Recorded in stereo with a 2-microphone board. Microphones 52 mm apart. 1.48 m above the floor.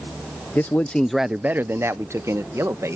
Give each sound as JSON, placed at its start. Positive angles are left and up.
{"t": 0.6, "sound": "a man speaking", "side_deg": 45}